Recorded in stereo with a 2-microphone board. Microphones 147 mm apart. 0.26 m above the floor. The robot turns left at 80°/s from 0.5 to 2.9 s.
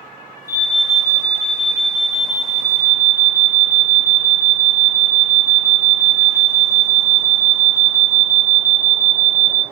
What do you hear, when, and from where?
0.5 s an alarm: 25° left, 3.5 m; by 9.6 s 170° right, 3.5 m